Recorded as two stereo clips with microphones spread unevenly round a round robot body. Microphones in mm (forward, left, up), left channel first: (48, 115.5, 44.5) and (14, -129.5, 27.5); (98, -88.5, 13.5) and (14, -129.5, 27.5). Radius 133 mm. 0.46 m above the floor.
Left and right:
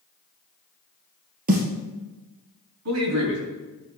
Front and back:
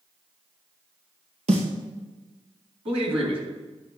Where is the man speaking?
135° right, 3.5 m.